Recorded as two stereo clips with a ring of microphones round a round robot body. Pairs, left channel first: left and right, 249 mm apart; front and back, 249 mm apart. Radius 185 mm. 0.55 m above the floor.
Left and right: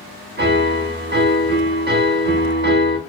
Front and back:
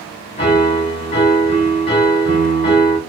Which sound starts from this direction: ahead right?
A piano, at 0.4 s.